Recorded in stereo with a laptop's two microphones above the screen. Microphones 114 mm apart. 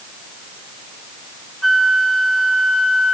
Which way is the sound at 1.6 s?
Centre (ahead or behind).